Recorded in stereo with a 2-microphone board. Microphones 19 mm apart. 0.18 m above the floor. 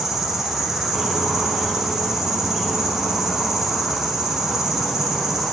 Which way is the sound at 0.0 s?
20° right (ahead or behind).